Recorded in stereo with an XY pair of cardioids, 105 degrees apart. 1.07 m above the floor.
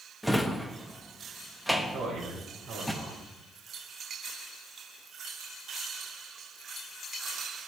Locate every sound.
0.2 s a drawer: straight ahead, 0.7 m
1.9 s a man speaking: 55° right, 4 m